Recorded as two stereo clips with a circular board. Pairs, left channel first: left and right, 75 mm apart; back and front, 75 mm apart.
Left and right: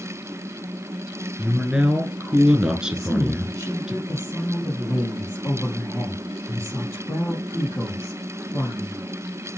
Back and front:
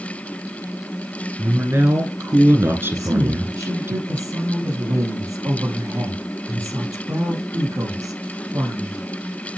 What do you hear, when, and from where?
1.4 s a man speaking: 20° right, 1.2 m
2.9 s a woman speaking: 40° left, 3.5 m